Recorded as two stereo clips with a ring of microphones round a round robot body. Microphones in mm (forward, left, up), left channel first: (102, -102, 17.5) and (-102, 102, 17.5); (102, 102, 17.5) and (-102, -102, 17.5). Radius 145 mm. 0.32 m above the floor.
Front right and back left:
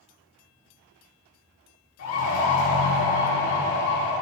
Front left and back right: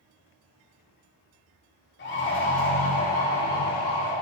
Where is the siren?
5° right, 7 m; by 4.1 s 10° left, 9 m.